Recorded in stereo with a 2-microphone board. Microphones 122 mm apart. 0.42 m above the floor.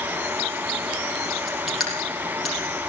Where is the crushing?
Centre (ahead or behind), 6.5 m.